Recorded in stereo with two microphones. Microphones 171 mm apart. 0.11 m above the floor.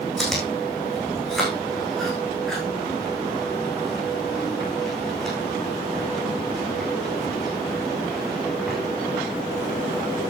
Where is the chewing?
Centre (ahead or behind), 7 m.